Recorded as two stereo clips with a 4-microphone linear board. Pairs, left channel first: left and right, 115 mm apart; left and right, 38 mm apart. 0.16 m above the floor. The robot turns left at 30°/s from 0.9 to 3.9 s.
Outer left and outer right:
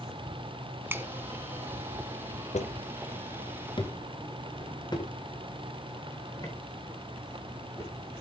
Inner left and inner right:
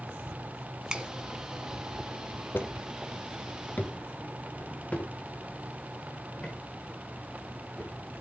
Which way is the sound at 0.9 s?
15° right (ahead or behind).